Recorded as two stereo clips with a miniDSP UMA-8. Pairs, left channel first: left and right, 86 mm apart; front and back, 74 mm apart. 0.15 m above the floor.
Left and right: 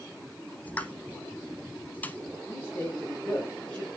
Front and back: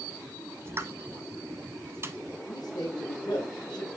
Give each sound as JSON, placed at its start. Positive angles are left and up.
{"t": 0.7, "sound": "a pop", "azimuth_deg": 150, "distance_m": 1.0}
{"t": 2.5, "sound": "a man speaking", "azimuth_deg": 10, "distance_m": 5.0}